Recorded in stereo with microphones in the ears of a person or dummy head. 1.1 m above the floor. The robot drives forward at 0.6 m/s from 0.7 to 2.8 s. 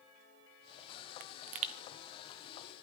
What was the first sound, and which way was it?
A pop, 55° right (ahead or behind).